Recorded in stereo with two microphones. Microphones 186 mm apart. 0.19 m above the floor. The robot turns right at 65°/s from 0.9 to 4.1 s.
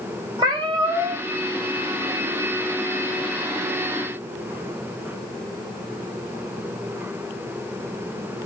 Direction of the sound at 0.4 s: 25° right (ahead or behind).